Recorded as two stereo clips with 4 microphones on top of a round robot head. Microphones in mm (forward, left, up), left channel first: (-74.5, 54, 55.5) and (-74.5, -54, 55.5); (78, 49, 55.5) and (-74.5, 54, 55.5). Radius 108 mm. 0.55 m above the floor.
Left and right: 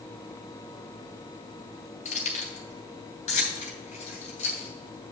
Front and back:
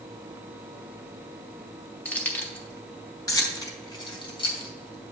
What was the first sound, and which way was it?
Keys jangling, 75° left.